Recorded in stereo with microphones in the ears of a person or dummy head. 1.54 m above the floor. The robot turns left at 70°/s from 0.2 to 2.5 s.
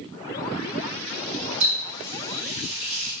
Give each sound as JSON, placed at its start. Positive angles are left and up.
{"t": 1.6, "sound": "a running tap", "side_deg": -70, "distance_m": 1.6}